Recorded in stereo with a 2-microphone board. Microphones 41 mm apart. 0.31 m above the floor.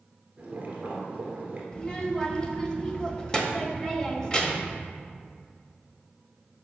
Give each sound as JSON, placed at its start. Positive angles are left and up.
{"t": 0.4, "sound": "boiling", "side_deg": -30, "distance_m": 1.7}
{"t": 1.7, "sound": "a child speaking", "side_deg": 20, "distance_m": 0.9}